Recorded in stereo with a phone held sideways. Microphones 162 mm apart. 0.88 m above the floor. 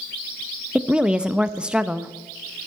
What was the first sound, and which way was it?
A woman speaking, 5° right (ahead or behind).